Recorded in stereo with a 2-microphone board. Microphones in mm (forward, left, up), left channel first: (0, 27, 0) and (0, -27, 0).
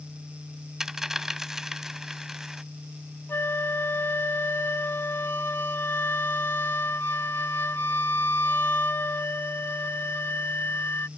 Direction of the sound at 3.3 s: 45° left (ahead or behind).